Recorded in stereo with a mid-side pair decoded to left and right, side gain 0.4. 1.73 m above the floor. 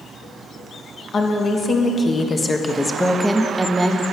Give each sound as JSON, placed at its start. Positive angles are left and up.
{"t": 1.1, "sound": "a woman speaking", "azimuth_deg": 55, "distance_m": 1.7}